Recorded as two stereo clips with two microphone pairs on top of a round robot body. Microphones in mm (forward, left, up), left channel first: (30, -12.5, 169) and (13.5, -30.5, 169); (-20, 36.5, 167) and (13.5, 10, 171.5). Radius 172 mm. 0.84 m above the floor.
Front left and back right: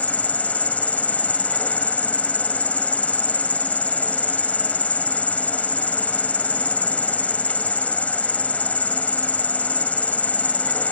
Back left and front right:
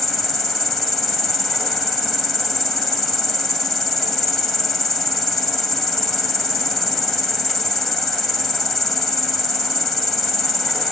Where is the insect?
50° left, 1.1 m.